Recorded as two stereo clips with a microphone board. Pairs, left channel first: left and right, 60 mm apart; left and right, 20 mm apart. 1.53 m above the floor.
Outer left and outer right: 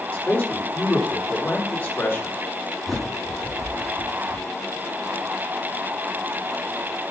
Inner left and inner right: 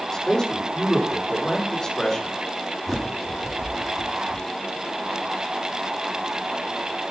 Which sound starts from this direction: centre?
A bird, at 2.9 s.